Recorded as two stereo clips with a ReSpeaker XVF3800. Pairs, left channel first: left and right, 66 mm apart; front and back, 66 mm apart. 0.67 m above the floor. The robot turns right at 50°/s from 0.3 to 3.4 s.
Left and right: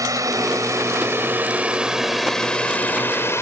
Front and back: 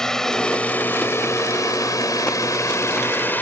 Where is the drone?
80° right; by 3.4 s 55° left.